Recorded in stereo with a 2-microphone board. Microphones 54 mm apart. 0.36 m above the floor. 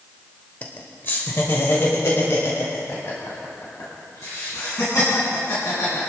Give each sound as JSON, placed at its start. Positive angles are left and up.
{"t": 0.6, "sound": "laughter", "side_deg": 30, "distance_m": 0.9}